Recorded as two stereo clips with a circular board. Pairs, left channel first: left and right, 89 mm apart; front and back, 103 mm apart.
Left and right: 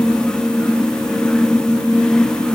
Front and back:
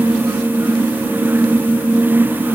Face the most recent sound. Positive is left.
No sound to turn to.